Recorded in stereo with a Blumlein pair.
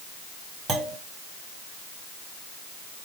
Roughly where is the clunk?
Ahead.